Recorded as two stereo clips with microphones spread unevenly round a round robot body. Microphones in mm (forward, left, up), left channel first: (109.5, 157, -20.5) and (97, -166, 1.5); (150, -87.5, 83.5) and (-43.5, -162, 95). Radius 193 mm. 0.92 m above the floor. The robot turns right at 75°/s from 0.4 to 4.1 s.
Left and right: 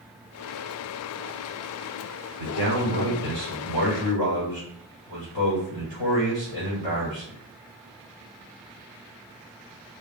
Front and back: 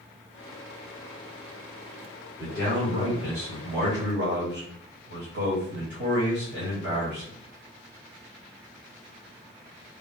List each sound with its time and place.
2.4 s a man speaking: 105° left, 2.5 m; by 7.4 s 125° right, 2.5 m